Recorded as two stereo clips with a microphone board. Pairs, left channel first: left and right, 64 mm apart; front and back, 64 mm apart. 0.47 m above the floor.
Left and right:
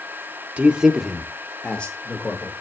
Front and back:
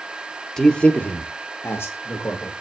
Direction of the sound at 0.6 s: 70° right.